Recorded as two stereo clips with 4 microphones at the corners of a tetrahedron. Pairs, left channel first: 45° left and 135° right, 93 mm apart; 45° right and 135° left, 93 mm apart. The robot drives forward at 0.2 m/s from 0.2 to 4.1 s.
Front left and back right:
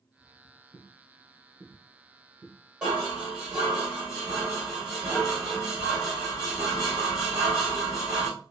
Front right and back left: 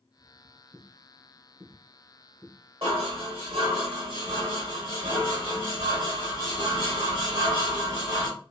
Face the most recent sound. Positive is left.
turn(degrees=145)